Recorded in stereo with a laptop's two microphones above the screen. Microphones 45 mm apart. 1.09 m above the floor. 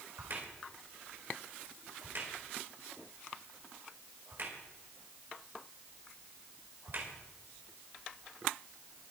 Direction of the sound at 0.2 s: 50° right (ahead or behind).